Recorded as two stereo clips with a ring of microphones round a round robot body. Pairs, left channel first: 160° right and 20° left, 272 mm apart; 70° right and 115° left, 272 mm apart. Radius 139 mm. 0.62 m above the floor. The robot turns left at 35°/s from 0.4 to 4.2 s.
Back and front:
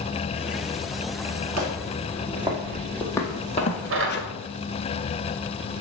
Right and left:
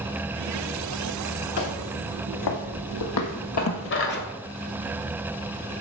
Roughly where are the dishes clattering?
Ahead.